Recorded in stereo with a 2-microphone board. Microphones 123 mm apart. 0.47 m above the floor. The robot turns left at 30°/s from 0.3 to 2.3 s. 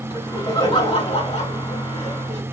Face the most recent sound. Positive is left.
turn(degrees=80)